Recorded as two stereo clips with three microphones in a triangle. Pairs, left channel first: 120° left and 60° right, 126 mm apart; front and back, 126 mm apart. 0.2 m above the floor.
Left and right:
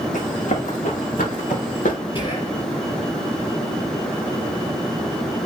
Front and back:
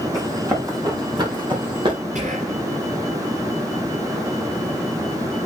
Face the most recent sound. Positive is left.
turn(degrees=160)